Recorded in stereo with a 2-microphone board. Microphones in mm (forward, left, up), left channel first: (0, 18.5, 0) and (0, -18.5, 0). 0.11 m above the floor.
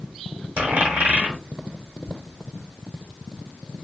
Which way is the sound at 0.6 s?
60° right (ahead or behind).